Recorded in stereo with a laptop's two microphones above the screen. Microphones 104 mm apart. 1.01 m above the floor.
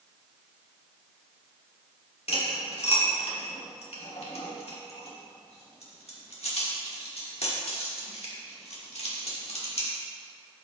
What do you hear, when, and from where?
2.3 s cutlery clinking: 75° left (ahead or behind), 1.7 m